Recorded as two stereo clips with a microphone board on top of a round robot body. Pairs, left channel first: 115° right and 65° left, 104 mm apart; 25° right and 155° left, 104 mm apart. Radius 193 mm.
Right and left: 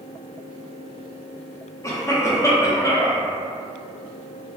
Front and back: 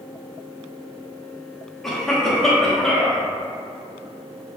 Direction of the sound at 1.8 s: 105° right.